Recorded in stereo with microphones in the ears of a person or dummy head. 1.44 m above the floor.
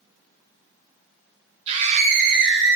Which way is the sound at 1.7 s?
35° right (ahead or behind).